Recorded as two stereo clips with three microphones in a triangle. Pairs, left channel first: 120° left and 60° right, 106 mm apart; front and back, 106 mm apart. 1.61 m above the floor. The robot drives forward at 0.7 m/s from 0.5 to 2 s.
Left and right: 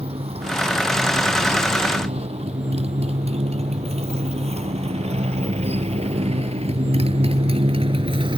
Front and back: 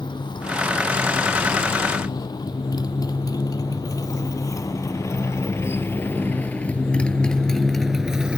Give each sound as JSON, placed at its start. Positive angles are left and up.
{"t": 0.0, "sound": "a motorcycle", "azimuth_deg": -40}